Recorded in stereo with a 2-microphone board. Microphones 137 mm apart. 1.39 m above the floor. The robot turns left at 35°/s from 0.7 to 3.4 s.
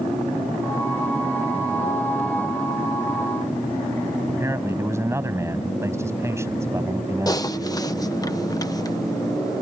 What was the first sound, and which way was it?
A man speaking, 20° right (ahead or behind).